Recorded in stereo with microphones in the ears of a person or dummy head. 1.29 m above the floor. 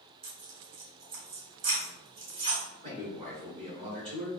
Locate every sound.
0.2 s tearing paper: 40° right (ahead or behind), 1.8 m
2.8 s a man speaking: 25° right (ahead or behind), 1.5 m